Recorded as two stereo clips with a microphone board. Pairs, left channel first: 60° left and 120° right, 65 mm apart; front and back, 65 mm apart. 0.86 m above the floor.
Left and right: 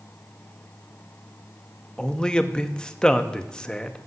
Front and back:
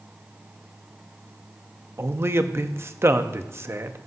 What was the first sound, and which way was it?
A man speaking, 135° left.